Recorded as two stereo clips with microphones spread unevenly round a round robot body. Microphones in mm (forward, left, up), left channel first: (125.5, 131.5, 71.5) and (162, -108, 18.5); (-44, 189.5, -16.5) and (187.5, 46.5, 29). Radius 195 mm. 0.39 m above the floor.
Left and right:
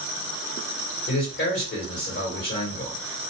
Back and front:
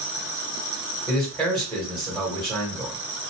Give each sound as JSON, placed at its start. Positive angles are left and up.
{"t": 1.1, "sound": "a man speaking", "azimuth_deg": 65, "distance_m": 2.0}